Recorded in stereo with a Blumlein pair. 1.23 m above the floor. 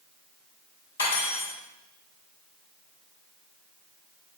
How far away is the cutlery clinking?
About 3 m.